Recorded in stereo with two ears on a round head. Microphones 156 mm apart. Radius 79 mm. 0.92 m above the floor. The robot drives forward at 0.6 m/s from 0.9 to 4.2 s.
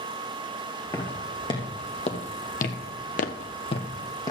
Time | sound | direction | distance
0.9 | footsteps | 20° left (ahead or behind) | 4 m